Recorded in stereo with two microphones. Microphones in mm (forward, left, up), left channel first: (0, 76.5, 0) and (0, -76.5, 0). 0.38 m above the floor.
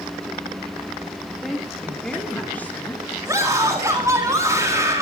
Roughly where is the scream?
Centre.